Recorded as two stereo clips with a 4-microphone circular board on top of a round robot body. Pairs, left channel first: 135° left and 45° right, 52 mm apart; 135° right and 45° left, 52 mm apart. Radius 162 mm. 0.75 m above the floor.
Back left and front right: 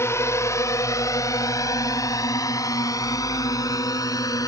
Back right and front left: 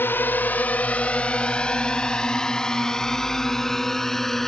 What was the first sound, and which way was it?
A drone, 175° left.